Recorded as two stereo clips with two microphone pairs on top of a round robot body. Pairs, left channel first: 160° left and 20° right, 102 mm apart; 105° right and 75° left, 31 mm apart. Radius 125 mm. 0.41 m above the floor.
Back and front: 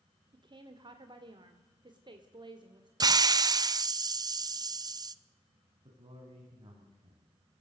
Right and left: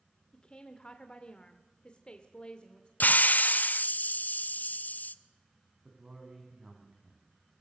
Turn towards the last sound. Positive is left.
turn(degrees=20)